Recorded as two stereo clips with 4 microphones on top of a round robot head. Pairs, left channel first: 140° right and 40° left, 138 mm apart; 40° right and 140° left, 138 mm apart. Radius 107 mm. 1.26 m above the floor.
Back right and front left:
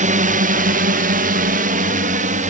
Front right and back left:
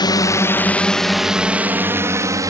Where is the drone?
15° left; by 2.5 s 75° left.